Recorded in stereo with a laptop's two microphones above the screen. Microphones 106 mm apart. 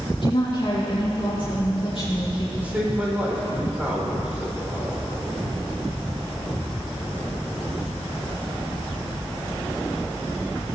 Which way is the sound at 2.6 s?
15° right (ahead or behind).